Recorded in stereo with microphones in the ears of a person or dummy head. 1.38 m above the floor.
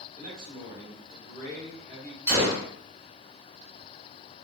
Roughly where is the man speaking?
Right.